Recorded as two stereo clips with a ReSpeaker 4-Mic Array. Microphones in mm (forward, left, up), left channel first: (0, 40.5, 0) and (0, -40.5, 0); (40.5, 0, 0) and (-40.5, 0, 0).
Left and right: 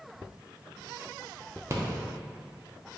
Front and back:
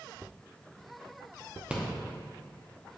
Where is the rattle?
115° right, 0.6 m.